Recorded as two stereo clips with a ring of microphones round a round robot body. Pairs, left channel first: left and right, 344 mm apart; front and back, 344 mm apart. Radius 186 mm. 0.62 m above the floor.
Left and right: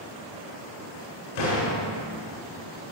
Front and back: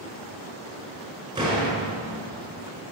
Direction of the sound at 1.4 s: 100° left.